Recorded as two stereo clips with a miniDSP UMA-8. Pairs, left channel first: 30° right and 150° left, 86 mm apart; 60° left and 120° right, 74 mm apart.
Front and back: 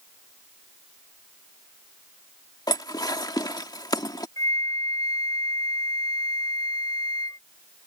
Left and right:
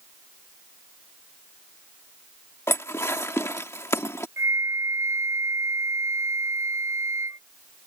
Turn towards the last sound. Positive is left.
turn(degrees=-70)